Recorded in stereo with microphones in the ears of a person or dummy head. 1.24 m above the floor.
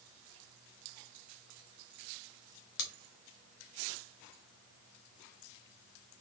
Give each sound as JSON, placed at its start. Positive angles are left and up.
{"t": 2.8, "sound": "scissors", "side_deg": 65, "distance_m": 1.0}